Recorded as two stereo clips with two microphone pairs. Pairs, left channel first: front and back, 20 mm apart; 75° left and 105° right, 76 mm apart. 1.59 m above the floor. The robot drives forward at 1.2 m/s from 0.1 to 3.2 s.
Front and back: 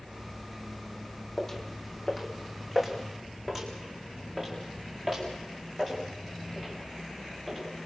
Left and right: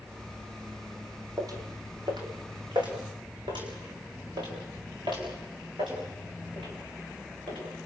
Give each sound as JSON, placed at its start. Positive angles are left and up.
{"t": 1.4, "sound": "footsteps", "azimuth_deg": -70, "distance_m": 3.5}